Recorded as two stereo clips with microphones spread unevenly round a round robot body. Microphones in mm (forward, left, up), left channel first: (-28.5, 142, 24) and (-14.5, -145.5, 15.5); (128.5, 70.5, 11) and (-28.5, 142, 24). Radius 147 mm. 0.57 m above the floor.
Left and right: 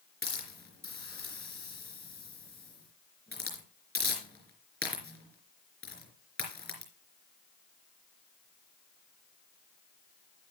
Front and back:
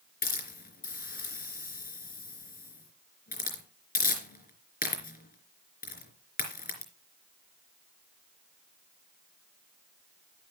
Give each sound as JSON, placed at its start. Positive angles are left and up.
{"t": 0.2, "sound": "a hiss", "azimuth_deg": 10, "distance_m": 3.5}